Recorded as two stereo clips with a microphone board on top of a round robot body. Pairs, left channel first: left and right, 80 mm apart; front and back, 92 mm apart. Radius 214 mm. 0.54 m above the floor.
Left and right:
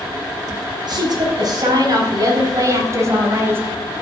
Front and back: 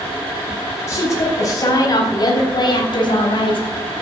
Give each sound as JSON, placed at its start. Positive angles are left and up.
{"t": 0.9, "sound": "a woman speaking", "azimuth_deg": -60, "distance_m": 5.0}